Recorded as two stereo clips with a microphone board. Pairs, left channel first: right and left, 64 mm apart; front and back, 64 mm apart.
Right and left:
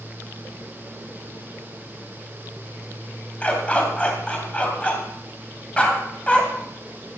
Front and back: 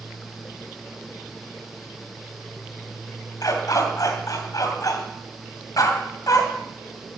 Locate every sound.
3.4 s a dog barking: 20° right, 2.5 m